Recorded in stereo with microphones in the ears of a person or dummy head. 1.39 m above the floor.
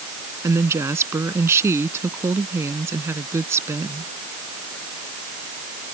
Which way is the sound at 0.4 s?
15° right (ahead or behind).